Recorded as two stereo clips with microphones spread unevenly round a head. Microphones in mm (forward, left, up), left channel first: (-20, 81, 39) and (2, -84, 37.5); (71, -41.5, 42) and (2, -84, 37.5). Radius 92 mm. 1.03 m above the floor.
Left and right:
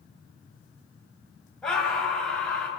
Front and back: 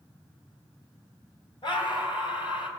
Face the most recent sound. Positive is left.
turn(degrees=15)